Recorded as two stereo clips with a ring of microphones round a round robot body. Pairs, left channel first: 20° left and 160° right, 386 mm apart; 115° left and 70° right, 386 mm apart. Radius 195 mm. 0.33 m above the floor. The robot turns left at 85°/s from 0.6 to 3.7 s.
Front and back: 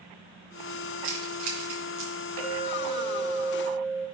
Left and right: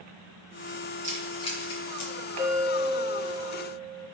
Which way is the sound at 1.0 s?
135° right.